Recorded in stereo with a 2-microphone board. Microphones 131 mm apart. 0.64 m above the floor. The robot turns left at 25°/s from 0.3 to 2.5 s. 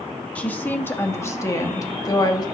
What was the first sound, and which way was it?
A woman speaking, 160° left.